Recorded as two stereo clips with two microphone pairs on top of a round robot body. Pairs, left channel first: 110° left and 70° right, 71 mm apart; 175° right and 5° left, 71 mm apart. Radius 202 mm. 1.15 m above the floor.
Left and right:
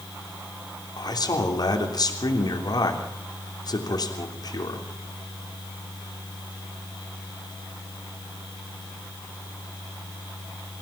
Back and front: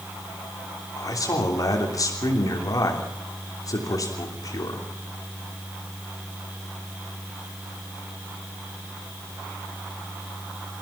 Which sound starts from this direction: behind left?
A man speaking, at 1.0 s.